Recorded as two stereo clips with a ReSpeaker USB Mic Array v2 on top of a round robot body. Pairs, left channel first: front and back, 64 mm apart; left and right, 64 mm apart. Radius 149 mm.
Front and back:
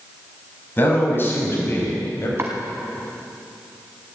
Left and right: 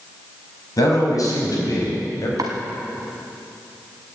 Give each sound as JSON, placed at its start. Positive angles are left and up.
{"t": 0.8, "sound": "a man speaking", "azimuth_deg": 60, "distance_m": 5.5}
{"t": 2.4, "sound": "chopping", "azimuth_deg": -125, "distance_m": 1.1}